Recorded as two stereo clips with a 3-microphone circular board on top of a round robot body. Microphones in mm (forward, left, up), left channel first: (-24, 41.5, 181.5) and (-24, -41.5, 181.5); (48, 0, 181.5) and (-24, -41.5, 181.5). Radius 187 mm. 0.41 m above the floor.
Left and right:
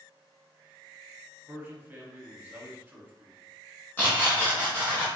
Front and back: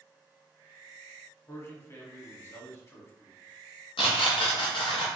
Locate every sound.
1.5 s a man speaking: 20° right, 1.4 m
4.0 s tearing paper: 20° left, 0.5 m